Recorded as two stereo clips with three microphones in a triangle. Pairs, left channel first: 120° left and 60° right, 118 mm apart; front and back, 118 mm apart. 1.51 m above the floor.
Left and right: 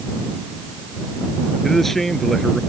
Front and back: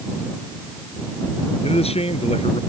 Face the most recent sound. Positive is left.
turn(degrees=35)